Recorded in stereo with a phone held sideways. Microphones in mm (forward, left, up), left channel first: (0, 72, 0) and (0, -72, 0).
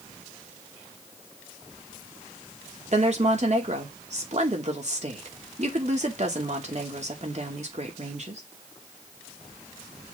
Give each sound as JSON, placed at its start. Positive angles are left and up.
{"t": 2.9, "sound": "a woman speaking", "side_deg": -50, "distance_m": 2.5}